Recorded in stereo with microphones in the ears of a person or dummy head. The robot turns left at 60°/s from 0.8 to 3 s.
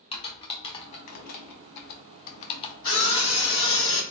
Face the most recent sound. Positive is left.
turn(degrees=40)  # may be behind; listen again after turning